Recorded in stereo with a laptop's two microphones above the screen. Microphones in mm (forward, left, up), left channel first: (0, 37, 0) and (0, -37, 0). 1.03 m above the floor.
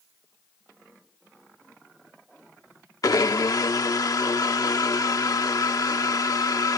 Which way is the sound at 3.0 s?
55° left (ahead or behind).